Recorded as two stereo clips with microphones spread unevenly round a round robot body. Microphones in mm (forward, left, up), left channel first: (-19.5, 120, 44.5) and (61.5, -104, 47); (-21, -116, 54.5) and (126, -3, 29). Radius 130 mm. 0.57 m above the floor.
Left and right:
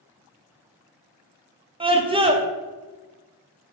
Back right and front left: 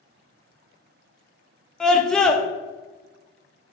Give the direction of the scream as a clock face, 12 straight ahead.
1 o'clock.